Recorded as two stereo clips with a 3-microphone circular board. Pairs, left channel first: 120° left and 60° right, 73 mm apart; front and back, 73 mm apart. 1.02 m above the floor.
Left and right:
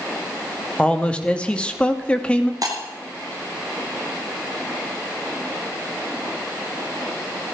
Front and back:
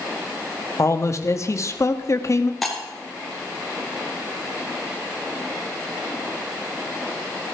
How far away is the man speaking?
About 1.5 m.